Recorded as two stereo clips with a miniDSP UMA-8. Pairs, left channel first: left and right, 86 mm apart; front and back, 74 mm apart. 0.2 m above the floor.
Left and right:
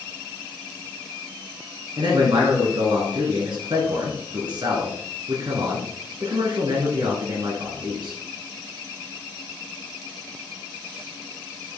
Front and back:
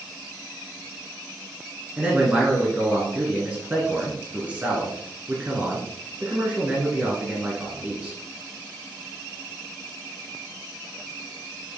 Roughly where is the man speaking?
Right.